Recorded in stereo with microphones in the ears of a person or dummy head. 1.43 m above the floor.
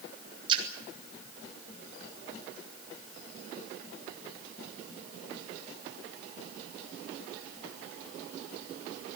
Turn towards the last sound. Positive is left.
turn(degrees=-30)  # may be behind; listen again after turning